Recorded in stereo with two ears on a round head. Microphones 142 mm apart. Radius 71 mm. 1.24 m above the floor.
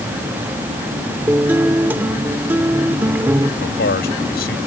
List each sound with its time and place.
1.3 s a guitar: 15° right (ahead or behind)
3.6 s a man speaking: 65° left (ahead or behind)